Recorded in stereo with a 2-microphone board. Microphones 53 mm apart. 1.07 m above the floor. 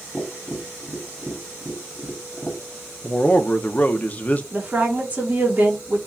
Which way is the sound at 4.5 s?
25° right (ahead or behind).